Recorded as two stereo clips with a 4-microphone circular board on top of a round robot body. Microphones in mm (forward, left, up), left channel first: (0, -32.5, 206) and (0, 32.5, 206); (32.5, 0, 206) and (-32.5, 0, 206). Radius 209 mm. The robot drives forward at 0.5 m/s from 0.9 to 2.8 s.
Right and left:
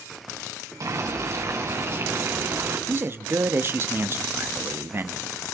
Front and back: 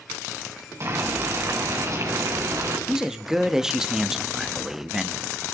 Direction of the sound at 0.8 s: 135° left.